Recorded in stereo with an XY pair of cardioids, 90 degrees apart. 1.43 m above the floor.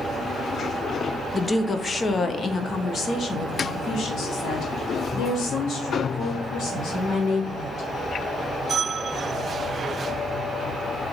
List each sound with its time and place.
1.3 s a woman speaking: 20° left, 0.8 m; by 7.9 s 70° left, 4 m